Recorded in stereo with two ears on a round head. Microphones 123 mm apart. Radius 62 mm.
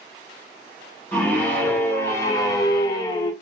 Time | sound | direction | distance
1.1 | a scream | 15° left (ahead or behind) | 1.6 m